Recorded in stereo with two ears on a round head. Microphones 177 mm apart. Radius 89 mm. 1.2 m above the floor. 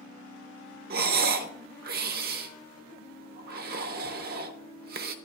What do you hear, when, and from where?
0.9 s breathing: 50° right (ahead or behind), 0.6 m